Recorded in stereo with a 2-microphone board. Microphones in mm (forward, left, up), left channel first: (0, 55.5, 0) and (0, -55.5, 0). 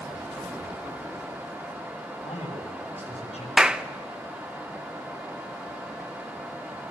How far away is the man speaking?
About 9 m.